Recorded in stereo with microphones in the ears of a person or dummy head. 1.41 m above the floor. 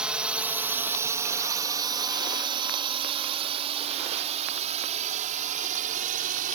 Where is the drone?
Centre (ahead or behind); by 6.6 s 35° right (ahead or behind).